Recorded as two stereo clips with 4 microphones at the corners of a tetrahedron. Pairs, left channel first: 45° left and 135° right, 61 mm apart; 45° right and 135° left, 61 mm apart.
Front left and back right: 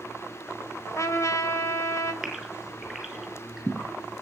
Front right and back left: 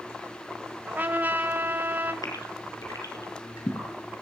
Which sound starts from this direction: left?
A trumpet, at 0.9 s.